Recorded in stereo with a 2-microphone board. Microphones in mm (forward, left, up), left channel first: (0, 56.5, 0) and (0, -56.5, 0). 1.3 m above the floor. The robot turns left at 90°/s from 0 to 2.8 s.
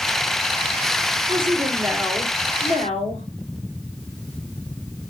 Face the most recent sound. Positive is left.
turn(degrees=105)